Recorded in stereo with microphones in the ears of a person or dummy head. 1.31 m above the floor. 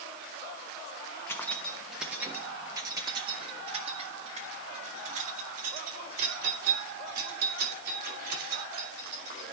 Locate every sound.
1.3 s keys jangling: 10° left (ahead or behind), 1.2 m; by 9.5 s 55° right (ahead or behind), 4.5 m